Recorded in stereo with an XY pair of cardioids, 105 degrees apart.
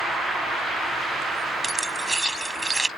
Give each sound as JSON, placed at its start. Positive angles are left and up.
{"t": 1.6, "sound": "keys jangling", "azimuth_deg": -15}